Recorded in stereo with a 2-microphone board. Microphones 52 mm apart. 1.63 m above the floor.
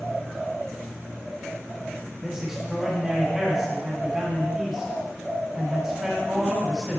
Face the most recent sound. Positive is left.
turn(degrees=-10)  # may be behind; listen again after turning